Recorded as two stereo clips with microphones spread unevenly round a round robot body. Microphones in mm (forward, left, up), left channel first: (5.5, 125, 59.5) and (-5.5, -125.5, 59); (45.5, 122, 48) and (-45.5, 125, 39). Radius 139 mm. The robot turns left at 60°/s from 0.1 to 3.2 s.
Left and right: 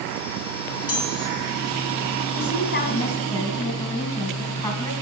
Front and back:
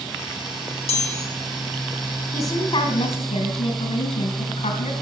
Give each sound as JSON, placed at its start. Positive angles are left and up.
{"t": 0.9, "sound": "a chime", "azimuth_deg": 15, "distance_m": 3.5}
{"t": 2.3, "sound": "a woman speaking", "azimuth_deg": 60, "distance_m": 4.5}